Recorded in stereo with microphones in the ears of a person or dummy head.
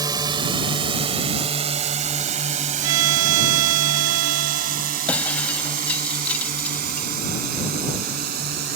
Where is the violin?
80° right.